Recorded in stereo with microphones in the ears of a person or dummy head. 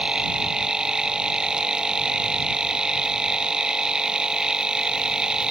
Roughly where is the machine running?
Centre.